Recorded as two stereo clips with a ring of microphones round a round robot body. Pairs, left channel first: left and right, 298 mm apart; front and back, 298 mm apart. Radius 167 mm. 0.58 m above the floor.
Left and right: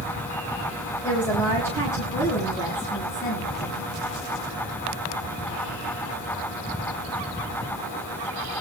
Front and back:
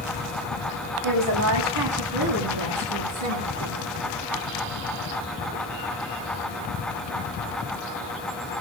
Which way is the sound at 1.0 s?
175° left.